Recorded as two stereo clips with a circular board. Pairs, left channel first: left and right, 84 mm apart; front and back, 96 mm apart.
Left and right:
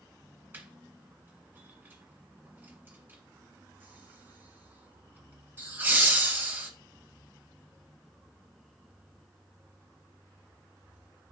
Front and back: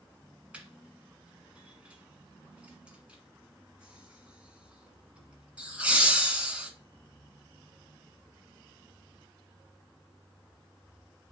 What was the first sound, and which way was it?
Laughter, 120° right.